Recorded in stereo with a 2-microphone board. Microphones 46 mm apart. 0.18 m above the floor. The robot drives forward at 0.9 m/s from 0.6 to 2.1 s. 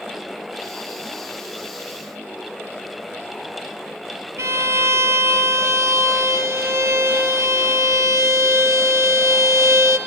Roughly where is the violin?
Right.